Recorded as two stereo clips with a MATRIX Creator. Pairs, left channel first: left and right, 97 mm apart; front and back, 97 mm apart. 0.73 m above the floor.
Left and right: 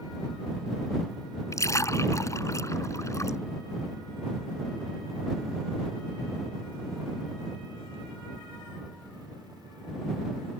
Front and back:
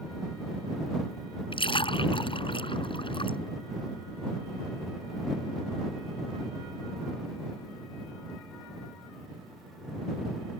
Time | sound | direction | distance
1.5 | a splash | 30° left | ?